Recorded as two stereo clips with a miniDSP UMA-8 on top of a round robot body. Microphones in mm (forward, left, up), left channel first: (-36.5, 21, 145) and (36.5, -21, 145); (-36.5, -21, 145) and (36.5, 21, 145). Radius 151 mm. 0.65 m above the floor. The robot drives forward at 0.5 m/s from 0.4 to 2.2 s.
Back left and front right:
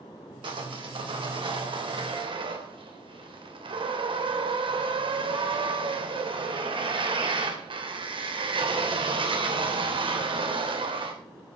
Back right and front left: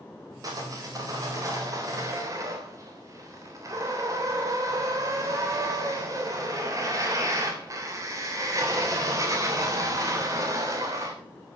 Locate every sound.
0.4 s sawing: 15° right, 4 m; by 11.1 s 20° right, 3.5 m